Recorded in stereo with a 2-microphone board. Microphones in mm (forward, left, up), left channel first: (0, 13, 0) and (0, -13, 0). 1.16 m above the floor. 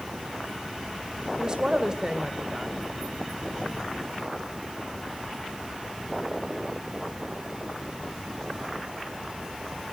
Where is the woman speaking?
30° right (ahead or behind), 1.2 m.